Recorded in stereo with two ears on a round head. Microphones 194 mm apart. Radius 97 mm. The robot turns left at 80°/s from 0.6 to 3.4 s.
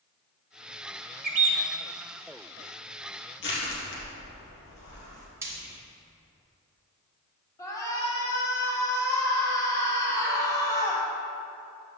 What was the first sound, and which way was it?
A bird, 130° right.